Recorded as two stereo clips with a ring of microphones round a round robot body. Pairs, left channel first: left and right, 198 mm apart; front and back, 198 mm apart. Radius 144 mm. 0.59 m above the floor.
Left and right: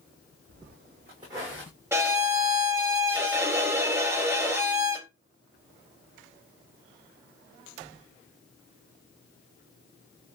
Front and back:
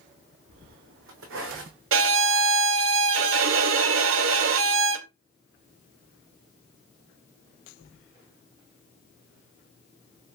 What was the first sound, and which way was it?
Footsteps, 140° right.